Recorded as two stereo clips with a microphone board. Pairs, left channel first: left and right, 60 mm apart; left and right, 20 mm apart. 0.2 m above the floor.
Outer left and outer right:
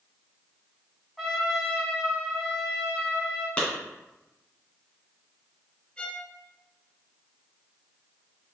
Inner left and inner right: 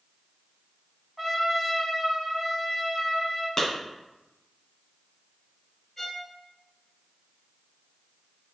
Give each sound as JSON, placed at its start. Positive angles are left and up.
{"t": 1.2, "sound": "a trumpet", "side_deg": -5, "distance_m": 1.1}
{"t": 3.6, "sound": "a clap", "side_deg": 20, "distance_m": 1.8}
{"t": 6.0, "sound": "a violin", "side_deg": 20, "distance_m": 0.7}